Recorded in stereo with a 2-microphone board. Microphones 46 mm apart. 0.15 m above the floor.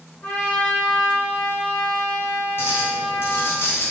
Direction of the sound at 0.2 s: 30° left (ahead or behind).